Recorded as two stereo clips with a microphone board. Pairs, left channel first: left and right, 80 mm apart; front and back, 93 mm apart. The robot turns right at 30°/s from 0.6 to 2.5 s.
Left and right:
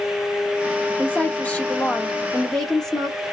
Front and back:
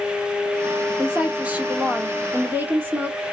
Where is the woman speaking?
115° left, 0.9 m; by 3.2 s 160° left, 0.9 m.